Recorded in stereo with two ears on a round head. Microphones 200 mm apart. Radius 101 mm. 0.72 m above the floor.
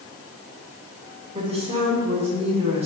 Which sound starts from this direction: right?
A woman speaking, at 1.4 s.